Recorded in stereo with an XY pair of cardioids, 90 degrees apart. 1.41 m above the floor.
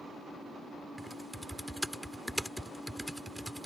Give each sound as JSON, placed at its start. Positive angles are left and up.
{"t": 1.0, "sound": "typing on a keyboard", "azimuth_deg": -5}